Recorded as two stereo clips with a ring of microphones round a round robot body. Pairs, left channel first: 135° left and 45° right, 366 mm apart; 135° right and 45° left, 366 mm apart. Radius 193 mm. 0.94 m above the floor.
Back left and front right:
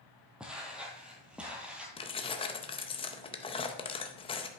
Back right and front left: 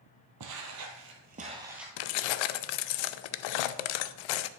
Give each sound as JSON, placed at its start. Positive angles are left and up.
{"t": 0.4, "sound": "footsteps", "azimuth_deg": 40, "distance_m": 1.2}
{"t": 2.0, "sound": "keys jangling", "azimuth_deg": -150, "distance_m": 0.5}